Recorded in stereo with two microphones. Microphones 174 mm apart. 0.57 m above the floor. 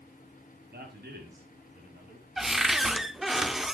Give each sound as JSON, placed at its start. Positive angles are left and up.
{"t": 0.7, "sound": "a man speaking", "side_deg": -70, "distance_m": 5.0}
{"t": 2.4, "sound": "a cupboard door", "side_deg": 0, "distance_m": 0.5}